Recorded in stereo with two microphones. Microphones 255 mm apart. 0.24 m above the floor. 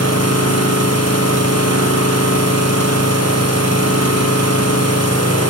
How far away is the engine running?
About 6.5 m.